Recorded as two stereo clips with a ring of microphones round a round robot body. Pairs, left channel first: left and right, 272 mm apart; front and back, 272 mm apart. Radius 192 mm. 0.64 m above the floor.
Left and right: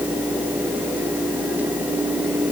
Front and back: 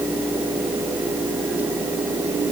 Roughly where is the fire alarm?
I don't hear a fire alarm.